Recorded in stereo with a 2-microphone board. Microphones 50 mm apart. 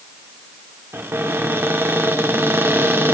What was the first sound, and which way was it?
A cupboard door, 55° right (ahead or behind).